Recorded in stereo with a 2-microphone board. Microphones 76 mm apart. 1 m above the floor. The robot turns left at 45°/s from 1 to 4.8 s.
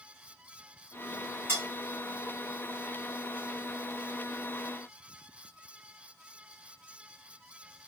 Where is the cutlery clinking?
30° right (ahead or behind), 1.5 m; by 1.6 s 25° right (ahead or behind), 1.5 m.